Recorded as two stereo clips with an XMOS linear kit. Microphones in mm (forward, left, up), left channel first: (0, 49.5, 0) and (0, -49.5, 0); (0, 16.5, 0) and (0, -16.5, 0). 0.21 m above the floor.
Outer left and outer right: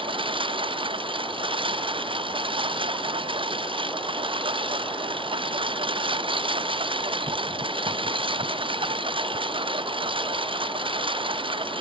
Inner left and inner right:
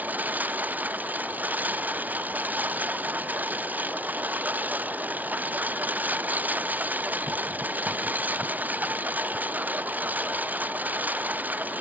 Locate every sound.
0.0 s a lawn mower: 60° right (ahead or behind)